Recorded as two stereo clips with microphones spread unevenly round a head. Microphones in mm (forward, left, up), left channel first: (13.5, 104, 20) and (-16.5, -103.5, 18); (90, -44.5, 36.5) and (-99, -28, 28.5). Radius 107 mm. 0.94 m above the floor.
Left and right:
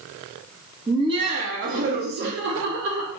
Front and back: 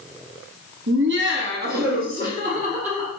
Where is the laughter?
170° right, 1.1 m; by 3.1 s 130° right, 1.9 m.